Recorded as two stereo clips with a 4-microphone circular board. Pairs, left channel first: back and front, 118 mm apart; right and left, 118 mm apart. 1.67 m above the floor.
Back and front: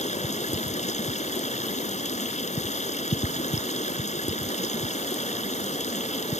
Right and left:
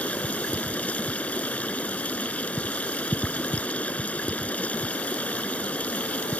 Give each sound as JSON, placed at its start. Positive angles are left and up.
{"t": 0.0, "sound": "running water", "azimuth_deg": -170}